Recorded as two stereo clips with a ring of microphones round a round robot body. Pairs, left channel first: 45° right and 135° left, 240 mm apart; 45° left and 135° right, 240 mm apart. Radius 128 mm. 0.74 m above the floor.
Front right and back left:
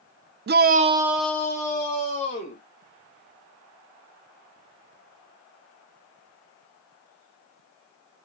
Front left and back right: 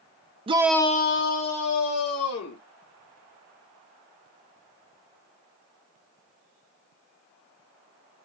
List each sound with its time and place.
0.5 s a shout: 165° left, 0.6 m; by 2.6 s 25° left, 2 m